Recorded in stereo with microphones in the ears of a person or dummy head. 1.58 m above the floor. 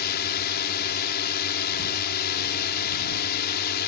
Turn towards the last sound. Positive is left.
turn(degrees=55)  # may be behind; listen again after turning